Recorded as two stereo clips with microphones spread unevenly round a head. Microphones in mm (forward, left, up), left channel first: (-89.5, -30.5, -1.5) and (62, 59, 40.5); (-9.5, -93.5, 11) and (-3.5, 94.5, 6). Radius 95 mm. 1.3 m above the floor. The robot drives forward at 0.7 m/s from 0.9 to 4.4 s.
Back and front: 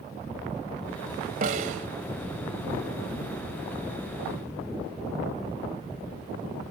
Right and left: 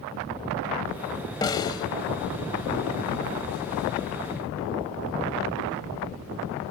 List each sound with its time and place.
1.4 s a snare drum: 20° right